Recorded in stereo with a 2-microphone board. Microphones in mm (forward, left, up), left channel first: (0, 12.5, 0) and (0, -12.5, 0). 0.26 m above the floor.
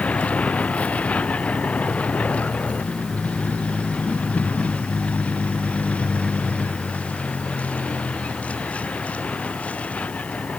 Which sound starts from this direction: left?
A vehicle, at 0.0 s.